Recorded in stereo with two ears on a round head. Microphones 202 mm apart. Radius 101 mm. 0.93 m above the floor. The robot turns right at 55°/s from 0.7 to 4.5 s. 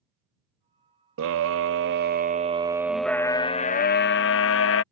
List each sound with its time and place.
1.2 s a scream: 100° right; by 4.8 s 85° left